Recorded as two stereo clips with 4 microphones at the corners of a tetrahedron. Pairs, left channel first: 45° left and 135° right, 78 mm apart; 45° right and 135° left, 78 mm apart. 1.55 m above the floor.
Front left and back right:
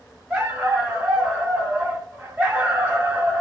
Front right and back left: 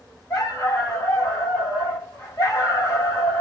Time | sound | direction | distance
0.3 | a dog barking | 70° right | 1.7 m